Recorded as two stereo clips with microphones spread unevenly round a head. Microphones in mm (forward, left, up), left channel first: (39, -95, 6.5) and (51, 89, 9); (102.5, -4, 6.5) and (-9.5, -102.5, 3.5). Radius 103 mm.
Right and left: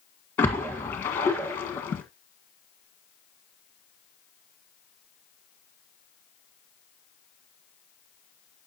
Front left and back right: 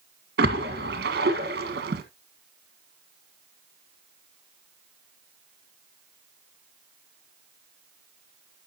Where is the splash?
175° right, 1.5 m.